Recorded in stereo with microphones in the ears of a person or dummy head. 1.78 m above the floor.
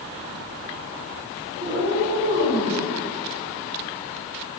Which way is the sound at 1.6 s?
45° right (ahead or behind).